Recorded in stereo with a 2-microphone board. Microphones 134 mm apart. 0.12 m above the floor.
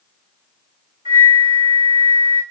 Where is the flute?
40° right (ahead or behind), 5 m.